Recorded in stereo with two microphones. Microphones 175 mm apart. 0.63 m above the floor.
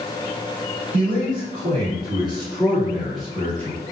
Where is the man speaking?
55° right (ahead or behind), 1.8 m; by 3.8 s 15° left (ahead or behind), 1.5 m.